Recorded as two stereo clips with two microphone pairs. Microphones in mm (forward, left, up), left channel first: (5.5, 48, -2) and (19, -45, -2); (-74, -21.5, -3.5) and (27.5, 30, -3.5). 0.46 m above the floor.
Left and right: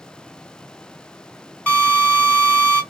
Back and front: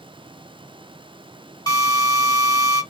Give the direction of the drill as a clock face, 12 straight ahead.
6 o'clock.